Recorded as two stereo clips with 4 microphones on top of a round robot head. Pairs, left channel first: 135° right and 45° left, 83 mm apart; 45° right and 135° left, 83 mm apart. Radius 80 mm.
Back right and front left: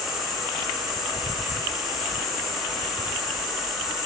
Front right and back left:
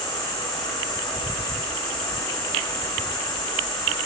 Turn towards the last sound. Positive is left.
turn(degrees=-45)